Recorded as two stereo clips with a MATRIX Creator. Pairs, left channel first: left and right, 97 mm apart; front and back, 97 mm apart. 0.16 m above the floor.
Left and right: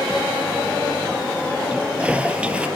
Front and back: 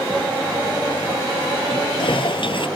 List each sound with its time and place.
1.7 s a toilet flushing: 15° right